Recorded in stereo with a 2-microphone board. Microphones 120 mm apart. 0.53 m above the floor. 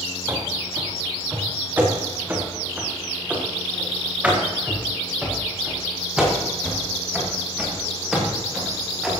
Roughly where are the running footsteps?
Right.